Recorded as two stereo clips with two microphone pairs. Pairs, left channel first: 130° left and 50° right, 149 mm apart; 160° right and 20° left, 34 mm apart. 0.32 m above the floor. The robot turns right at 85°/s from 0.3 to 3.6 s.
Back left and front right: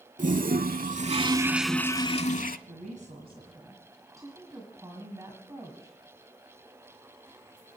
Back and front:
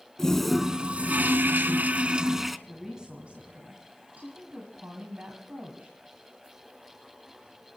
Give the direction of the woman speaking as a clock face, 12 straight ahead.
2 o'clock.